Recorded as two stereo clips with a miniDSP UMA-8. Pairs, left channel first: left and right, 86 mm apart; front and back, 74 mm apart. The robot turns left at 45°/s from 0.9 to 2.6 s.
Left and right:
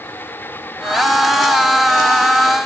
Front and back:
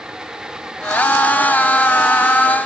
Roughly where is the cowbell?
No cowbell in this recording.